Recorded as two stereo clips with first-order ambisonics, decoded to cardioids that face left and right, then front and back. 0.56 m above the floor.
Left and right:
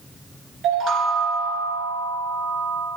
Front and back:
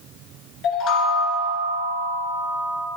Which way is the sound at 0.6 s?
40° right.